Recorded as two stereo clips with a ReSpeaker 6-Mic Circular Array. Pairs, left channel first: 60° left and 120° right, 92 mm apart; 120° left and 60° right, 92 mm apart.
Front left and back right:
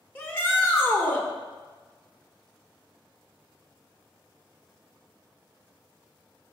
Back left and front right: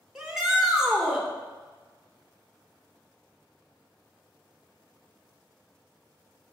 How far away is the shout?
About 1.2 m.